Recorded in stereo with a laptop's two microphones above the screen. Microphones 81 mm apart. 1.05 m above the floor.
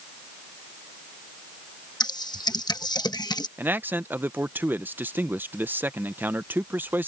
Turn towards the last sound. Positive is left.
turn(degrees=-25)  # may be behind; listen again after turning